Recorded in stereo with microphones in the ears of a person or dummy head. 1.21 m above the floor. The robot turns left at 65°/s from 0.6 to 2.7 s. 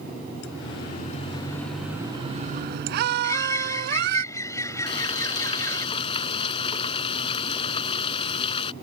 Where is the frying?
30° left (ahead or behind).